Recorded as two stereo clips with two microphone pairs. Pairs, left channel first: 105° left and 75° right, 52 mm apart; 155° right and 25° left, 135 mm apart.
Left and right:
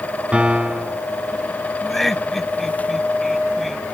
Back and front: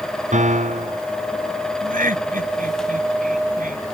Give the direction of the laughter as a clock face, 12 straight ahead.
11 o'clock.